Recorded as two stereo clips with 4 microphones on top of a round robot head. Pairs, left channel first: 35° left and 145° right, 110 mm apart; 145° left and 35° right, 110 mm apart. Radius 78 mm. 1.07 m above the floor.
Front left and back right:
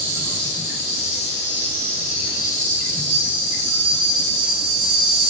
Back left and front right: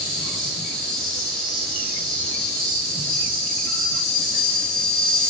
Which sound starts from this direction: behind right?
An insect, at 0.0 s.